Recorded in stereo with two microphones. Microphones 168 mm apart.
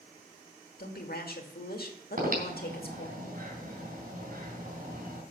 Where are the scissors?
No scissors in this recording.